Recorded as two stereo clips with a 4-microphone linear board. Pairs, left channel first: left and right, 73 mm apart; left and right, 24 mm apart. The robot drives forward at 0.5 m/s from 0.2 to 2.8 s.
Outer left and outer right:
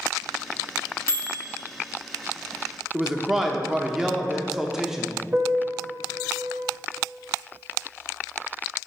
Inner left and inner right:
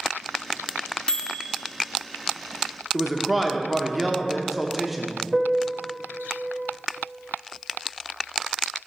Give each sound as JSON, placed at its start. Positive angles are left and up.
{"t": 1.1, "sound": "a microwave", "side_deg": 40, "distance_m": 0.5}
{"t": 2.9, "sound": "a man speaking", "side_deg": -5, "distance_m": 0.6}
{"t": 5.3, "sound": "a piano", "side_deg": -30, "distance_m": 0.7}